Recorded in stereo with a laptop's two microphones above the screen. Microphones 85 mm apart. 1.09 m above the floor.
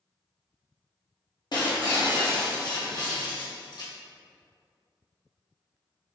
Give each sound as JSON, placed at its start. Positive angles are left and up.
{"t": 1.5, "sound": "breaking glass", "side_deg": 55, "distance_m": 0.8}